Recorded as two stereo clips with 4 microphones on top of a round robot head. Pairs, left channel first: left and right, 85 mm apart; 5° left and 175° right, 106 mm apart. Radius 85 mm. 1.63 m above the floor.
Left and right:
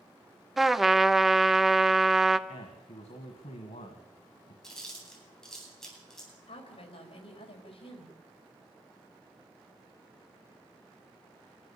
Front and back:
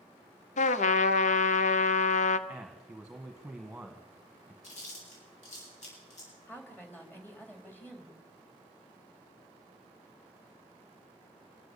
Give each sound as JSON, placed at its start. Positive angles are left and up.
{"t": 0.6, "sound": "a trumpet", "azimuth_deg": 0, "distance_m": 0.8}
{"t": 2.5, "sound": "a man speaking", "azimuth_deg": 100, "distance_m": 1.7}
{"t": 4.6, "sound": "chewing", "azimuth_deg": 5, "distance_m": 10.0}
{"t": 6.5, "sound": "a woman speaking", "azimuth_deg": 80, "distance_m": 4.0}